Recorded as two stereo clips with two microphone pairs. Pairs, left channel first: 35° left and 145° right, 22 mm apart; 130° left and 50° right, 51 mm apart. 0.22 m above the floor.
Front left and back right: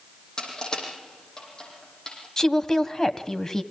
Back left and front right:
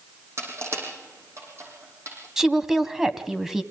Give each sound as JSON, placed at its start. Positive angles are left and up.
{"t": 0.4, "sound": "crushing", "azimuth_deg": -25, "distance_m": 6.5}
{"t": 2.4, "sound": "a woman speaking", "azimuth_deg": 20, "distance_m": 1.6}